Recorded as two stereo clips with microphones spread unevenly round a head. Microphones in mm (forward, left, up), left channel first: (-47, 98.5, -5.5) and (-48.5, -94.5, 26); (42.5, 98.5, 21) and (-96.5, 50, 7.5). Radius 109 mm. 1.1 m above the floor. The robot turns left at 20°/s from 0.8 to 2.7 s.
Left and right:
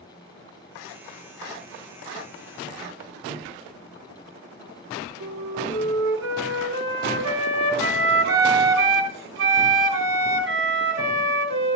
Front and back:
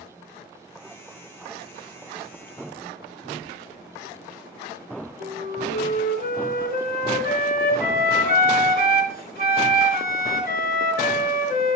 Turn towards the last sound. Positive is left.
turn(degrees=-100)